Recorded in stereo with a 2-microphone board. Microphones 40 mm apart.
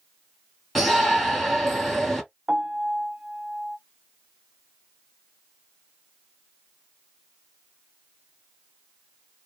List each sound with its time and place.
0.8 s a shout: 5° left (ahead or behind), 1.5 m
2.5 s a piano: 25° right (ahead or behind), 0.5 m